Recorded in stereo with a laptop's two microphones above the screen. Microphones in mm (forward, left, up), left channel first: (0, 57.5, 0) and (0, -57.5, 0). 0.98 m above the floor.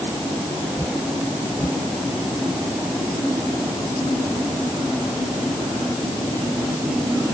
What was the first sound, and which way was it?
Only background noise.